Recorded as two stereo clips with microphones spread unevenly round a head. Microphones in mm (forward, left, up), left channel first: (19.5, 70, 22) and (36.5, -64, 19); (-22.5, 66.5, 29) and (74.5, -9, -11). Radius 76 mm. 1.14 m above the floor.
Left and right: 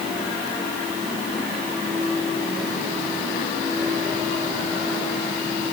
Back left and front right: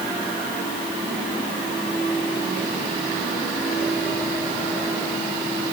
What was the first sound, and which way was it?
Only background noise.